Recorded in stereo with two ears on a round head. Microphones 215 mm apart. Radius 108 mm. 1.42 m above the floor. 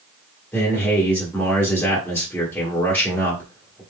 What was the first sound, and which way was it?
A man speaking, 5° left (ahead or behind).